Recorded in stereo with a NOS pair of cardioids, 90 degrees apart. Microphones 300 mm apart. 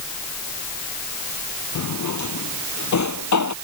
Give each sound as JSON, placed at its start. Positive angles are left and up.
{"t": 1.8, "sound": "a drawer", "azimuth_deg": 70}